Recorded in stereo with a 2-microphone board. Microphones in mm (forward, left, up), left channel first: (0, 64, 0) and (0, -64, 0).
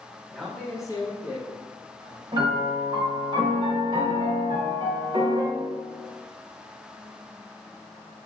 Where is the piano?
40° right (ahead or behind), 0.9 m.